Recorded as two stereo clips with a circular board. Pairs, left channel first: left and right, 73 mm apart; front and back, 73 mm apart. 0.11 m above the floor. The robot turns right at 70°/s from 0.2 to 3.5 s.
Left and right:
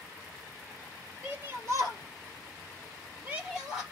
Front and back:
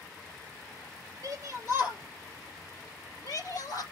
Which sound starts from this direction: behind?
A shout, at 1.2 s.